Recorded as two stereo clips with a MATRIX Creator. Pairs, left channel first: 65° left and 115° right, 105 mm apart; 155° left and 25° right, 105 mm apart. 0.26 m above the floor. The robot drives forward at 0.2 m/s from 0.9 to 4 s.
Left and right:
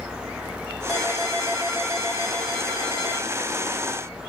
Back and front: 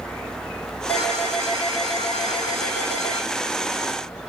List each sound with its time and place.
0.9 s a ringtone: 160° left, 8 m; by 3.3 s 165° left, 8.5 m